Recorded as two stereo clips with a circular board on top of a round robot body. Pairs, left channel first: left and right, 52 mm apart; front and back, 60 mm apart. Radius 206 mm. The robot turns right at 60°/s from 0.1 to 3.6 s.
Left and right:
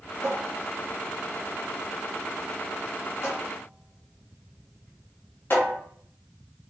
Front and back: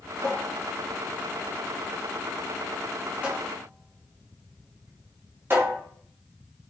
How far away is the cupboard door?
About 1.6 m.